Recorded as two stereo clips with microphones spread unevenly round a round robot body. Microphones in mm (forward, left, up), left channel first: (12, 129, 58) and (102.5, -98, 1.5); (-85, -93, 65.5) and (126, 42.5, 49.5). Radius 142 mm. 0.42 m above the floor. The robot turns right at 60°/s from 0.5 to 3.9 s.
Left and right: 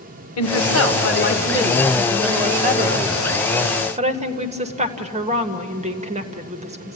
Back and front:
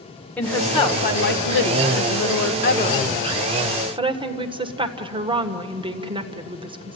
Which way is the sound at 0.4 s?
125° left.